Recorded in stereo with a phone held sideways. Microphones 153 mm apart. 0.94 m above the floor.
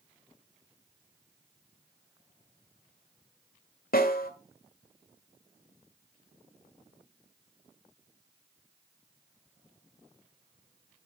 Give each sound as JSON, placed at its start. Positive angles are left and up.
{"t": 3.9, "sound": "a snare drum", "side_deg": 75, "distance_m": 1.6}